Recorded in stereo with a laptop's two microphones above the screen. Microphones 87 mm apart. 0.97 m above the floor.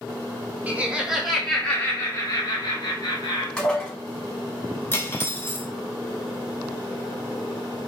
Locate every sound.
0.7 s laughter: 20° right (ahead or behind), 1.0 m; by 3.5 s 55° left (ahead or behind), 1.3 m
3.6 s dishes clattering: 10° left (ahead or behind), 1.6 m
4.9 s cutlery clinking: 25° left (ahead or behind), 0.8 m